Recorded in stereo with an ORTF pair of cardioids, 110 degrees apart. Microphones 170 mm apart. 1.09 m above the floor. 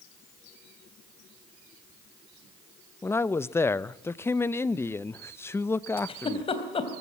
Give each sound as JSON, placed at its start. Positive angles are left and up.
{"t": 3.0, "sound": "a man speaking", "azimuth_deg": 15, "distance_m": 0.7}
{"t": 6.0, "sound": "a giggle", "azimuth_deg": 30, "distance_m": 3.5}